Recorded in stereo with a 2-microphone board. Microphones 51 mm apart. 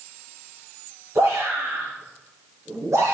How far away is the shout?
About 7 m.